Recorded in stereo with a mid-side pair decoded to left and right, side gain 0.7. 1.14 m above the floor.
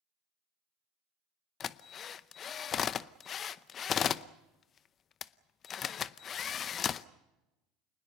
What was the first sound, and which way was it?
A drill, 40° left.